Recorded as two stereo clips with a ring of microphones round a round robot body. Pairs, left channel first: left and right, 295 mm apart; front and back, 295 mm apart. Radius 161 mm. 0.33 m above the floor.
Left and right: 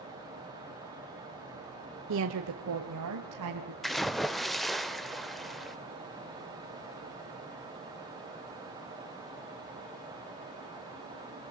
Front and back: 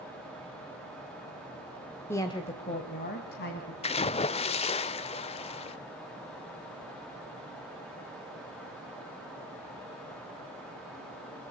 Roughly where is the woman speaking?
Right.